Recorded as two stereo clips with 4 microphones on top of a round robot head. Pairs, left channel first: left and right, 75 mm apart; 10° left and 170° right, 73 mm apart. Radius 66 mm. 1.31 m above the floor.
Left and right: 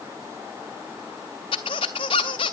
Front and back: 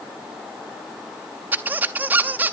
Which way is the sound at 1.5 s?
130° left.